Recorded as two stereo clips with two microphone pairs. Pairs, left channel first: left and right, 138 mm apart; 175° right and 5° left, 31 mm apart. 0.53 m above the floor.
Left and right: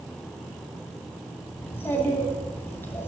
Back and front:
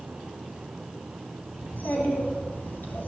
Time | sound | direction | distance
1.6 | a child speaking | 165° left | 3 m